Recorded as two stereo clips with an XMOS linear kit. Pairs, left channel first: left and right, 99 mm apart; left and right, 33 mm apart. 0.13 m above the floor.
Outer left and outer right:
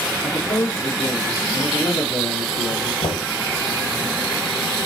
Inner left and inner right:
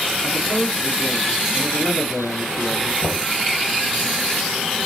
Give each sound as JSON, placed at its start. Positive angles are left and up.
{"t": 0.2, "sound": "a man speaking", "side_deg": 70, "distance_m": 3.5}
{"t": 3.0, "sound": "knocking", "side_deg": 65, "distance_m": 3.0}